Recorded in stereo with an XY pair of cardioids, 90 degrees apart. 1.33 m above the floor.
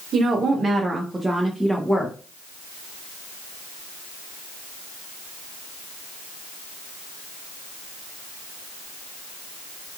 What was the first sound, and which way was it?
A woman speaking, 65° right.